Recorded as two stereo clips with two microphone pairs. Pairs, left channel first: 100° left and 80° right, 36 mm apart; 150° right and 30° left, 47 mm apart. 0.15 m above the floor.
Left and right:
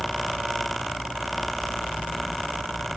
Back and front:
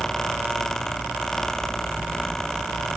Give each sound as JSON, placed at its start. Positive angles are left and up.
{"t": 0.0, "sound": "a helicopter", "azimuth_deg": 165}